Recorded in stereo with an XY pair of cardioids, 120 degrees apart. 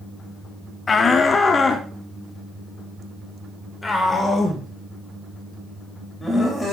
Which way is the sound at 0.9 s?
30° left.